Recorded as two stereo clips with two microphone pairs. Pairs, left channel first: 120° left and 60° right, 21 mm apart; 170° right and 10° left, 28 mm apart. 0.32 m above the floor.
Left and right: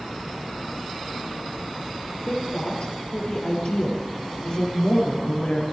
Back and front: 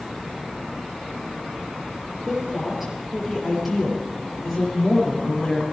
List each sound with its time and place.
2.3 s a woman speaking: 90° left, 7.5 m; by 5.6 s 105° left, 7.5 m